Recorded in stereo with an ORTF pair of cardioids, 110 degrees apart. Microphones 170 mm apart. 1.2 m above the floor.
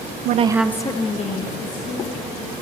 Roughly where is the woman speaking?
Ahead right.